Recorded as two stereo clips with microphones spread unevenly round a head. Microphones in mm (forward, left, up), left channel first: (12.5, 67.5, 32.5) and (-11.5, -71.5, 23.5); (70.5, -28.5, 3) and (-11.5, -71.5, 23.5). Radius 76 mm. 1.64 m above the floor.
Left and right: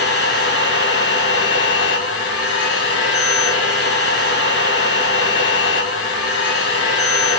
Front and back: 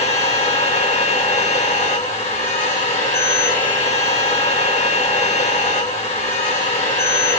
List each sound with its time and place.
0.0 s a machine running: 65° left, 1.9 m